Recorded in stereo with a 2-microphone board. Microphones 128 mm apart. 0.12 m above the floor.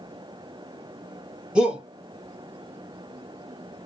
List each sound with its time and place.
1.6 s a shout: 5° right (ahead or behind), 1.5 m